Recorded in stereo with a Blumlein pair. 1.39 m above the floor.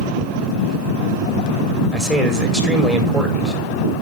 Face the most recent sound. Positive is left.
turn(degrees=-5)